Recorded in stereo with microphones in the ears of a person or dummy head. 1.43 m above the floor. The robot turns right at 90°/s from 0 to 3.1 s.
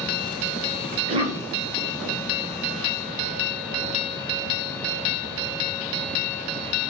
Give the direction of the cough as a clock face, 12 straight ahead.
2 o'clock.